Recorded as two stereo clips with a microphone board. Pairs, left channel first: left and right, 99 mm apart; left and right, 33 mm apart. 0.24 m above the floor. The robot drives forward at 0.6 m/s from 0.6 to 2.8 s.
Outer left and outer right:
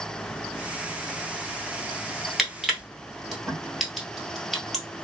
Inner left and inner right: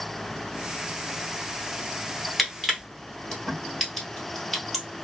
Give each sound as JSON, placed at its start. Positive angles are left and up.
{"t": 2.4, "sound": "crushing", "side_deg": 0, "distance_m": 1.1}